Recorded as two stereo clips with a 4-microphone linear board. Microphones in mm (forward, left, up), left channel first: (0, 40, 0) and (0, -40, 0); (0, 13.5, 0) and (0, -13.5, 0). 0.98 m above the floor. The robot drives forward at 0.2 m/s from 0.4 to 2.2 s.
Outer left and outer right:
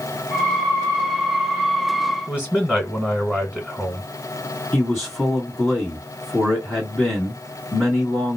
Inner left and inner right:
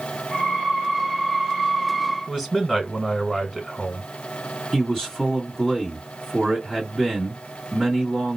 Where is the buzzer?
No buzzer in this recording.